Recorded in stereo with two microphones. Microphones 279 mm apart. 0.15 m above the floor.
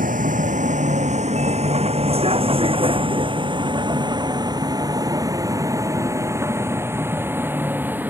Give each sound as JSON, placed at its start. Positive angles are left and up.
{"t": 0.0, "sound": "a vehicle", "side_deg": -30}